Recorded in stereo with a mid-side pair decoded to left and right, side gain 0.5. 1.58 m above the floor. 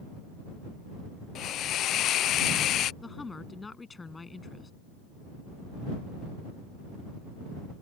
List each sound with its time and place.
1.4 s a hiss: 65° left
3.0 s a woman speaking: 20° left